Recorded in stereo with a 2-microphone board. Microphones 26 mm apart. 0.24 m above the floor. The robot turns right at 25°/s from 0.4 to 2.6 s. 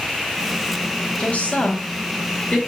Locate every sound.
1.2 s a woman speaking: 70° left (ahead or behind), 4 m; by 2.6 s 45° left (ahead or behind), 4 m